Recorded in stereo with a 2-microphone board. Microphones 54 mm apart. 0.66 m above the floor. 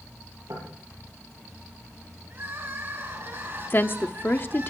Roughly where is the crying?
Right.